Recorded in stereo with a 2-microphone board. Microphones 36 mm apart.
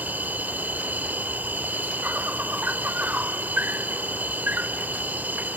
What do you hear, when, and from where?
0.0 s an insect: 55° right (ahead or behind)